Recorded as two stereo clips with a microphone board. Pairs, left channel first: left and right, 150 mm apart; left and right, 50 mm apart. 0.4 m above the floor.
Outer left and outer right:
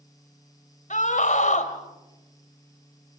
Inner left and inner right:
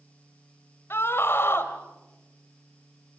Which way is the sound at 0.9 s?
55° left (ahead or behind).